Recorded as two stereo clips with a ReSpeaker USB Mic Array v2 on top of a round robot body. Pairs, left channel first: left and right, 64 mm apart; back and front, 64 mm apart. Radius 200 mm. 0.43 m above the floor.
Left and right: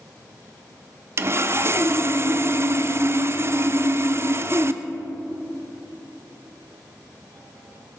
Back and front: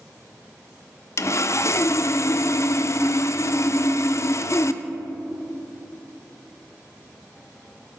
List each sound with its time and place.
1.2 s sawing: 140° right, 0.5 m